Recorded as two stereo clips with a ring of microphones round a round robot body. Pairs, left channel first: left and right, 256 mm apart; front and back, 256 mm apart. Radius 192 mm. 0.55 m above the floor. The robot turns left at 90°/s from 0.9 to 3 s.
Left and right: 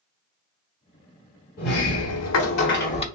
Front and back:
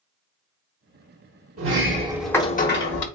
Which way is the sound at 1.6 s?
150° left.